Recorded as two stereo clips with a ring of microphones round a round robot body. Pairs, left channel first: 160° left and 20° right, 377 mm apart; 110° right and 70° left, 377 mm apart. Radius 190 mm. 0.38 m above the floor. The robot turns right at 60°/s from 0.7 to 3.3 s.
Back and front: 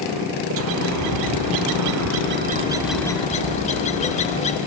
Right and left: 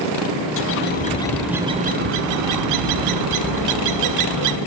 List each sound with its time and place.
0.6 s a bird: 65° right, 0.6 m; by 4.6 s 90° left, 0.6 m